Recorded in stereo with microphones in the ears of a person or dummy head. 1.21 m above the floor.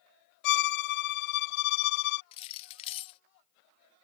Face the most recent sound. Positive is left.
turn(degrees=35)  # may be behind; listen again after turning